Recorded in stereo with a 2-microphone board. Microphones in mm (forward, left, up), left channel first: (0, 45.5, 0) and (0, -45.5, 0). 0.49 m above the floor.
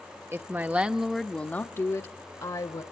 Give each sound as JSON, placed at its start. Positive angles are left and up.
{"t": 0.3, "sound": "a woman speaking", "side_deg": -30, "distance_m": 0.9}